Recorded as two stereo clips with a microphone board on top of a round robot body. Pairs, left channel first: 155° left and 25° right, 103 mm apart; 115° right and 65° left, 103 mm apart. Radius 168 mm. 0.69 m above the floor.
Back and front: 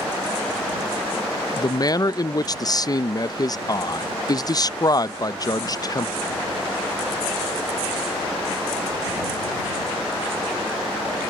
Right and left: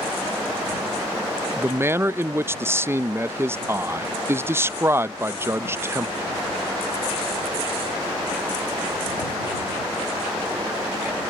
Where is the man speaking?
125° left.